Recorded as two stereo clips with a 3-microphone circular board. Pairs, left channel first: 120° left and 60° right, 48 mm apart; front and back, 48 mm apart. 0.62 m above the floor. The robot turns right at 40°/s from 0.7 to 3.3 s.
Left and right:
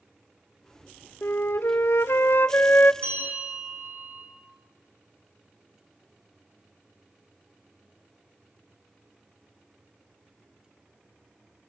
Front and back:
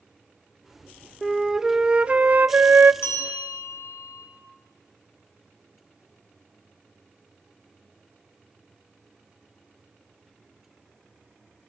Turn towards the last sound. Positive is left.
turn(degrees=-15)